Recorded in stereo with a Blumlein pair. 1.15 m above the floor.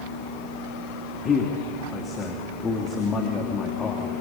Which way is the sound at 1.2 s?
20° left.